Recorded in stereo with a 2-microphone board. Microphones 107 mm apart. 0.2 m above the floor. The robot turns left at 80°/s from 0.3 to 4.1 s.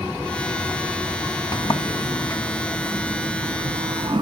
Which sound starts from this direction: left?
A sliding door, at 1.5 s.